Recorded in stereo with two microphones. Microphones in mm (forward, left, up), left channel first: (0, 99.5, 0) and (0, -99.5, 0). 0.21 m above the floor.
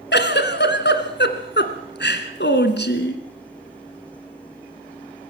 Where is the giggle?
60° left (ahead or behind), 1.8 m.